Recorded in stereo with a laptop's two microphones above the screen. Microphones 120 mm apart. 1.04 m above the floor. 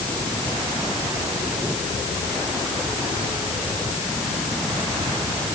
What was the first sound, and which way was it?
Only background noise.